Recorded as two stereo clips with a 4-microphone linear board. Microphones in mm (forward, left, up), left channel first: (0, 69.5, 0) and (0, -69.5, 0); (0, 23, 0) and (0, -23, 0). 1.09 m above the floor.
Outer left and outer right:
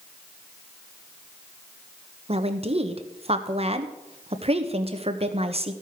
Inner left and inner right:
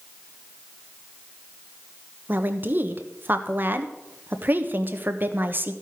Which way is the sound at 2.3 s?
45° right (ahead or behind).